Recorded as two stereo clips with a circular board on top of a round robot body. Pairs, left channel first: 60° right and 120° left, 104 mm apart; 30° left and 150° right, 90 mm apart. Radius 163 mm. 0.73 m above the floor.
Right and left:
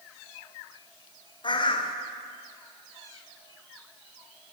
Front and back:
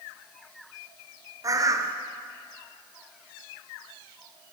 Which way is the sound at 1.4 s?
100° right.